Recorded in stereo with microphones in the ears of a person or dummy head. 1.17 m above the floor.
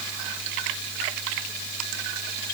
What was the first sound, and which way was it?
Only background noise.